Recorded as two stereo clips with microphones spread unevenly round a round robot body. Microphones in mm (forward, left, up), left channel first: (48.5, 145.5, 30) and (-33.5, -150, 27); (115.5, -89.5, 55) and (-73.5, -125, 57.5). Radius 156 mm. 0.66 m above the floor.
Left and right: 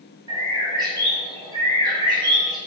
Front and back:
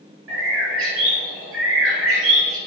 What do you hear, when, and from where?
0.3 s a bird: 175° left, 0.9 m